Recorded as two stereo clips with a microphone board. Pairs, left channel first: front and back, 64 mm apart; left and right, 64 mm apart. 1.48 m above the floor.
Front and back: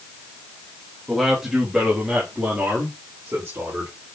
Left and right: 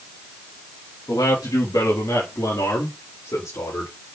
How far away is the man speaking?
About 3 m.